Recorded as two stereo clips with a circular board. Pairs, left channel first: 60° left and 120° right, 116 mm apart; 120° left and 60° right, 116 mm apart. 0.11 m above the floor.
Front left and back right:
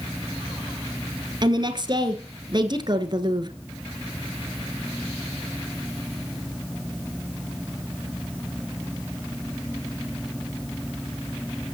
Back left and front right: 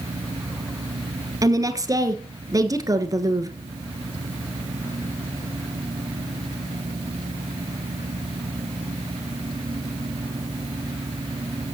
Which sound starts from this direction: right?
A woman speaking, at 1.4 s.